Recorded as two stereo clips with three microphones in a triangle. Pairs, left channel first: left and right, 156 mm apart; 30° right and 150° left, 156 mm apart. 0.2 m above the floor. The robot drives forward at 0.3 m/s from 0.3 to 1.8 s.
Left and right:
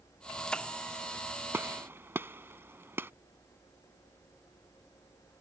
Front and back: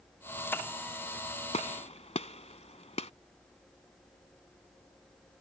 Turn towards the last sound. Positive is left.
turn(degrees=-20)